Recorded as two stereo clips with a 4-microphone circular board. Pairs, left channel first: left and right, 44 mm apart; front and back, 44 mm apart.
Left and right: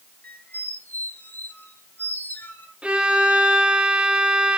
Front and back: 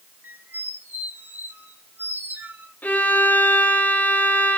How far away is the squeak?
About 1.7 m.